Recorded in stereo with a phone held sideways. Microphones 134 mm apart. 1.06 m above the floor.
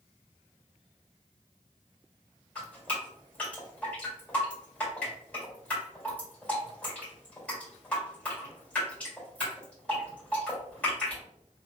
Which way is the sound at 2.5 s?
10° left (ahead or behind).